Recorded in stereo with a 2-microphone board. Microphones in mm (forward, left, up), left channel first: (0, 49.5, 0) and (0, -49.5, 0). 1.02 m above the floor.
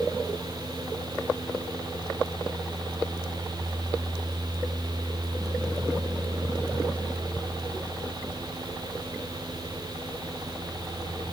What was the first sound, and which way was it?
Only background noise.